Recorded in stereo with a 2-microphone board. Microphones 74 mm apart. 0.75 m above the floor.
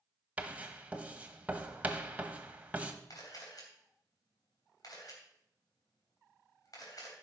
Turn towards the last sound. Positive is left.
turn(degrees=60)  # may be behind; listen again after turning